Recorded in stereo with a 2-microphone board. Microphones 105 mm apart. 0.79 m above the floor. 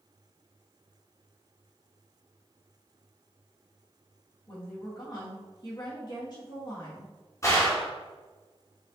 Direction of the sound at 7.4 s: 30° left (ahead or behind).